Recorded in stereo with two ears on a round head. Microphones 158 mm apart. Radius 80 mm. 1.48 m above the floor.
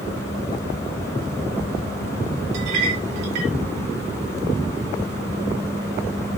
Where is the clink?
75° right (ahead or behind), 3 m.